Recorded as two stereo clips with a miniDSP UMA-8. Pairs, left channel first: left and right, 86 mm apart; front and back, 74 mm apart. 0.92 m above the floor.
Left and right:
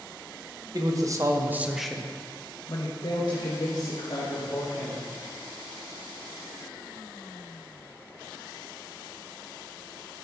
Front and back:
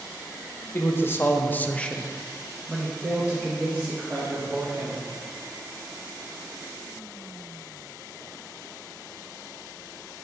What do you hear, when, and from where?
0.7 s a man speaking: 55° right, 1.0 m; by 5.0 s 115° left, 2 m